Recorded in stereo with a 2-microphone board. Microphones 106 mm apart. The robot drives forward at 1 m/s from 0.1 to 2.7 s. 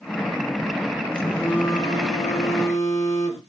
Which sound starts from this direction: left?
A phone buzzing, at 1.1 s.